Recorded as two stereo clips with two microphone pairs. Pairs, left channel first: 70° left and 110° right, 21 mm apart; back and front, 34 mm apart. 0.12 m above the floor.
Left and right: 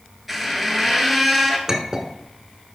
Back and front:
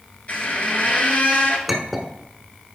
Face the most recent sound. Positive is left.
turn(degrees=-90)